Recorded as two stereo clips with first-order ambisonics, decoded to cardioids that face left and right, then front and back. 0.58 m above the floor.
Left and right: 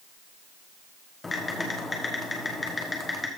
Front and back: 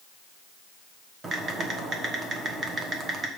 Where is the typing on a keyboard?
150° left, 1.2 m.